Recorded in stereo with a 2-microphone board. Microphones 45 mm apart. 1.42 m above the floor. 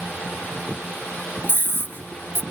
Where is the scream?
60° left (ahead or behind).